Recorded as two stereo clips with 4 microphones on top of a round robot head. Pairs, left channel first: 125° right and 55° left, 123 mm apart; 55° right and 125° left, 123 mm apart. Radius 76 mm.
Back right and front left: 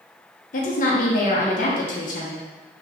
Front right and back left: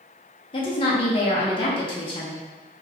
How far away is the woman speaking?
About 0.7 m.